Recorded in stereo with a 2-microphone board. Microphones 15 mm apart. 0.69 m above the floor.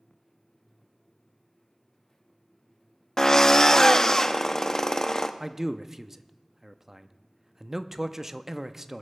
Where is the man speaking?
15° right (ahead or behind), 0.5 m.